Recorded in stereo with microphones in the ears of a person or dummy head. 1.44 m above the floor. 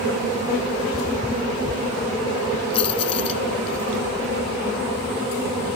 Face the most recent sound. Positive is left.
turn(degrees=35)  # may be behind; listen again after turning